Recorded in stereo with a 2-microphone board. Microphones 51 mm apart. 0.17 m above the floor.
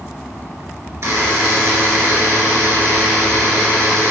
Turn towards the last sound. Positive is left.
turn(degrees=-60)  # may be behind; listen again after turning